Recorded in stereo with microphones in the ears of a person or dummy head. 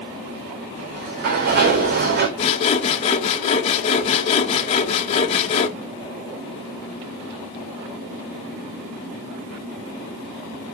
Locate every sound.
0.8 s a sliding door: 50° right (ahead or behind), 3 m
2.4 s sawing: 35° left (ahead or behind), 1.6 m